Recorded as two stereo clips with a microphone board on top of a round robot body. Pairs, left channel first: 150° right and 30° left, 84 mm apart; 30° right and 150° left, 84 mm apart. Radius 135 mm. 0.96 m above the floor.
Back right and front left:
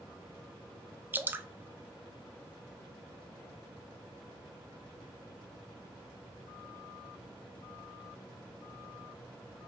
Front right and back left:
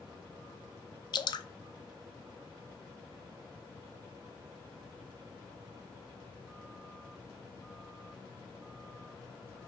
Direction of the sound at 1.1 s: 35° right.